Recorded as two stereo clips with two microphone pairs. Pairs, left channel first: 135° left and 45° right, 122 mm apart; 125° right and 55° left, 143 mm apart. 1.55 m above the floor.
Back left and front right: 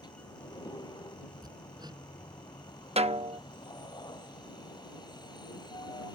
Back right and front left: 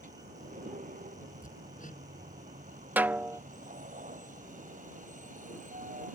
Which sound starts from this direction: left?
A vehicle, at 0.0 s.